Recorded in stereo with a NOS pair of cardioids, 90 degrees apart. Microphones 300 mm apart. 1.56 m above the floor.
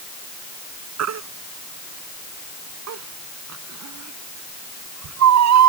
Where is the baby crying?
65° right.